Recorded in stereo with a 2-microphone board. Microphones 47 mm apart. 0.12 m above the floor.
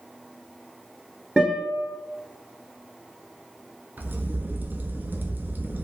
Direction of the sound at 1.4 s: 15° right (ahead or behind).